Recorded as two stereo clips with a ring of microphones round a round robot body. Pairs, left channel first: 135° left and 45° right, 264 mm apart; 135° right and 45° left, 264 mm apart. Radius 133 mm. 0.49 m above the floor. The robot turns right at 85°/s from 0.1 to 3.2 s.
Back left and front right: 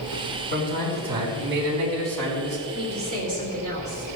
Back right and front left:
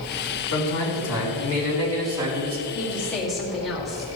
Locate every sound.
0.5 s a man speaking: 175° right, 4.5 m; by 2.6 s straight ahead, 4.5 m
2.7 s a woman speaking: 90° right, 1.7 m; by 4.0 s 45° right, 1.7 m